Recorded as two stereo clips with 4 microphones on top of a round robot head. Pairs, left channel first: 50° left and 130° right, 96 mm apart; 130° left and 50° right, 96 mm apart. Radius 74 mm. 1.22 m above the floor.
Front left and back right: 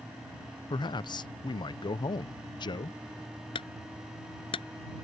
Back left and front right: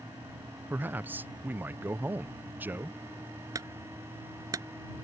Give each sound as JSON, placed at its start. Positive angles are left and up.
{"t": 0.7, "sound": "a man speaking", "azimuth_deg": 20}
{"t": 3.5, "sound": "a clunk", "azimuth_deg": 10}